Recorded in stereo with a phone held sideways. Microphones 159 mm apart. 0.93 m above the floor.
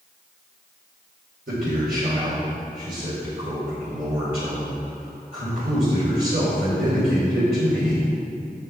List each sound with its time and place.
1.5 s a man speaking: 80° right, 3 m